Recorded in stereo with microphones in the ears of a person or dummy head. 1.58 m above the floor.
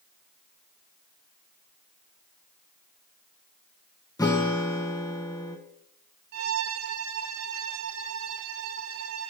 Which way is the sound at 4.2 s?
10° left (ahead or behind).